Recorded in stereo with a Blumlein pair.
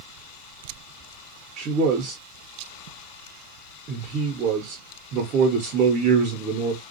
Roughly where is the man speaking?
Ahead right.